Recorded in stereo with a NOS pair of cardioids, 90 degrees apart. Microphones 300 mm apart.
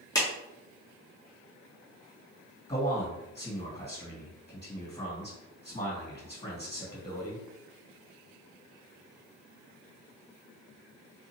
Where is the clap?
15° left, 1.2 m.